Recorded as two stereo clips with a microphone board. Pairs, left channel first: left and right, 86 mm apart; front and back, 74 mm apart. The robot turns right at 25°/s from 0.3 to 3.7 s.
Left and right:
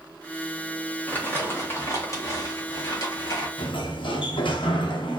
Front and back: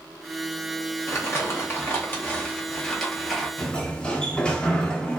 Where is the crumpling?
30° left, 0.9 m; by 3.5 s 90° left, 0.9 m.